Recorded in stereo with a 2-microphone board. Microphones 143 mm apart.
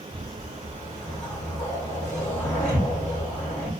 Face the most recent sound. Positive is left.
turn(degrees=20)  # may be behind; listen again after turning